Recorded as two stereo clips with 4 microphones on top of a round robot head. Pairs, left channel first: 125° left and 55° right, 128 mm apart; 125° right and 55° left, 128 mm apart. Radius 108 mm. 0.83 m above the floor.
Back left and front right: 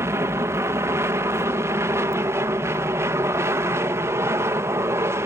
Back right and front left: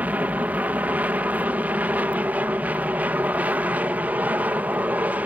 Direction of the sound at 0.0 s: 10° right.